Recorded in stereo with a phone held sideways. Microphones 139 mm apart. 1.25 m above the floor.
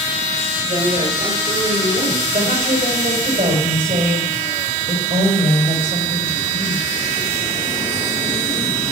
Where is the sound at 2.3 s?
65° right (ahead or behind), 5 m.